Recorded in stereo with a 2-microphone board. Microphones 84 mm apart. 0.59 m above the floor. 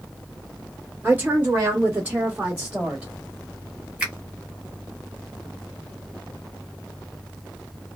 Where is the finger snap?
15° right (ahead or behind), 1.5 m.